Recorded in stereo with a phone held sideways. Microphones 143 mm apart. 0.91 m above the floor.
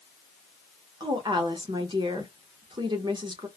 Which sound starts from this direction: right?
A woman speaking, at 1.0 s.